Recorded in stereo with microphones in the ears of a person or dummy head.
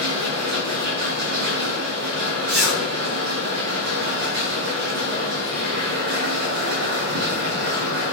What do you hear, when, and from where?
0.0 s a machine running: 70° right (ahead or behind), 7 m
2.5 s a zipper: 80° right, 7.5 m